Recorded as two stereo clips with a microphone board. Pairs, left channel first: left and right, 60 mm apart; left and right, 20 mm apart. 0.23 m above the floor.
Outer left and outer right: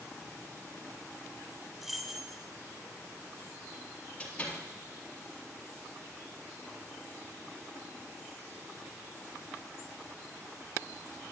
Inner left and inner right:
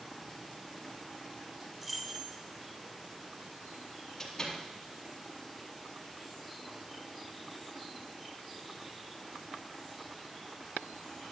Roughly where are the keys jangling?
Centre.